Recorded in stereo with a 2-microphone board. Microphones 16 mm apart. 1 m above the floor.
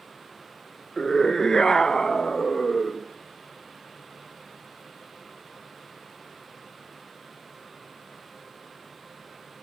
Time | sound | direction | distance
1.0 | a scream | 25° left (ahead or behind) | 0.7 m